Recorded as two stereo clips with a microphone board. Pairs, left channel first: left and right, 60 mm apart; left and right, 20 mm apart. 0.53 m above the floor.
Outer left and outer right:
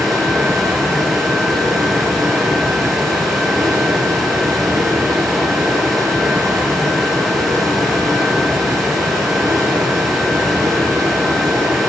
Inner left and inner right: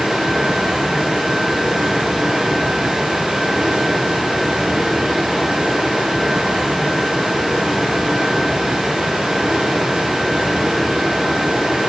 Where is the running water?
75° right (ahead or behind), 6.5 m.